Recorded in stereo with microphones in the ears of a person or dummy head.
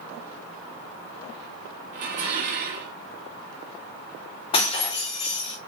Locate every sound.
1.9 s dishes clattering: 50° right (ahead or behind), 0.7 m
4.5 s breaking glass: 35° left (ahead or behind), 1.2 m